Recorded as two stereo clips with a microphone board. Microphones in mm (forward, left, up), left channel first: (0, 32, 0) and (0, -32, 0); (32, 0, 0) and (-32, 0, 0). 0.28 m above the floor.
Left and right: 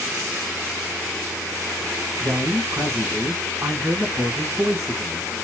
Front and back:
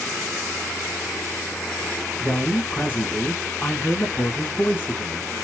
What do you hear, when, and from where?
2.2 s a man speaking: 55° right, 2 m